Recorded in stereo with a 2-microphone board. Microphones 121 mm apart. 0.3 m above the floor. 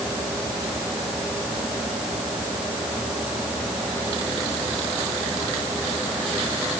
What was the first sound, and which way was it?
Only background noise.